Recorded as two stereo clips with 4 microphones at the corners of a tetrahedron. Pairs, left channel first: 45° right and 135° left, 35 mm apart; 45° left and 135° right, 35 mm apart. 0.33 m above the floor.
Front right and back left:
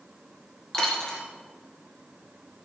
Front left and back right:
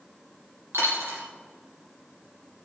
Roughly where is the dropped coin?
Behind right.